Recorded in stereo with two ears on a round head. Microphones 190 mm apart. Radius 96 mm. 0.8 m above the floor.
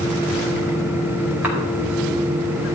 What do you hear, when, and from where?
1.4 s a cough: 10° right (ahead or behind), 4.5 m